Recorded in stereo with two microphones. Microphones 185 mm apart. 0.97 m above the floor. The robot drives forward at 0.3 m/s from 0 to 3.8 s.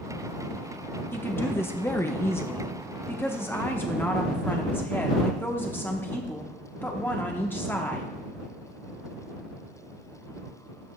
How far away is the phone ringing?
No phone ringing in this recording.